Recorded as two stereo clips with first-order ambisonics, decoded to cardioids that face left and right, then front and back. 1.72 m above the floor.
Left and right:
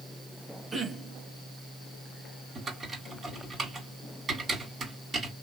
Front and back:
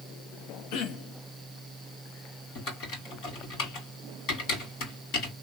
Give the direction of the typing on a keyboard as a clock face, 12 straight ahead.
1 o'clock.